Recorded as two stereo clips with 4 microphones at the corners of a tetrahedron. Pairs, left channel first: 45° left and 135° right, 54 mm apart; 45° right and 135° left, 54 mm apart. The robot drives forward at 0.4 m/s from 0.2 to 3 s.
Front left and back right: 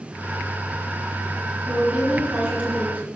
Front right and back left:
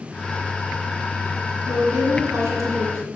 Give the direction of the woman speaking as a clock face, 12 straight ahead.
7 o'clock.